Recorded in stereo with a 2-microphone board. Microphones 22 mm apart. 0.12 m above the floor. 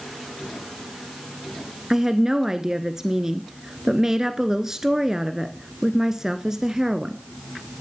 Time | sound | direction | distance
1.9 | a woman speaking | 20° right (ahead or behind) | 1.4 m